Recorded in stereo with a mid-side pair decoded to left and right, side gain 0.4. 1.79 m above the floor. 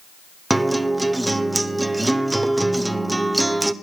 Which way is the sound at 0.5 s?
15° right.